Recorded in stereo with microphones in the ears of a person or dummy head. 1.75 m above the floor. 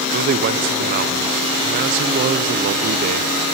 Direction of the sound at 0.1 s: 45° right (ahead or behind).